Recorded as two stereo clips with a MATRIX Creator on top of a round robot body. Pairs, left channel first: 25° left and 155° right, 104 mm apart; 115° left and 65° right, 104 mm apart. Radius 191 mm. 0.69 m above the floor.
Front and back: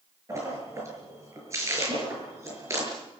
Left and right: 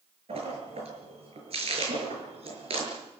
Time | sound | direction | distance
0.3 | a splash | 95° right | 7 m